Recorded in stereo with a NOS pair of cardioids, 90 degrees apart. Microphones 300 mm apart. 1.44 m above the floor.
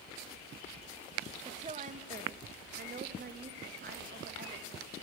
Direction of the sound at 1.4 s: 20° right.